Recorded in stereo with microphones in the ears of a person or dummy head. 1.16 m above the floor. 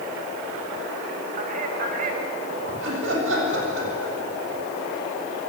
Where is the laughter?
75° right (ahead or behind), 7.5 m.